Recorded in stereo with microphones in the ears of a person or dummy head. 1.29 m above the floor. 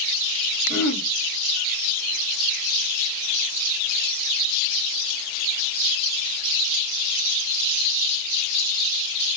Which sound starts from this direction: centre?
Throat clearing, at 0.7 s.